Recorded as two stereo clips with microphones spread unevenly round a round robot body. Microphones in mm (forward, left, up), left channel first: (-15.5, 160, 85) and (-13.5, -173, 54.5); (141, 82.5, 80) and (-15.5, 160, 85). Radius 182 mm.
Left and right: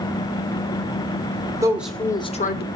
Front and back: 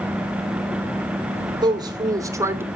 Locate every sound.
1.6 s a woman speaking: 155° right, 1.2 m; by 2.7 s 85° left, 1.1 m